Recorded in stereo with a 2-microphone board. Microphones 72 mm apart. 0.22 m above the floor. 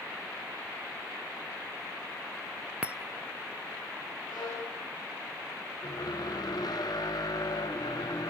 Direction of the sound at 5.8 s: 70° left (ahead or behind).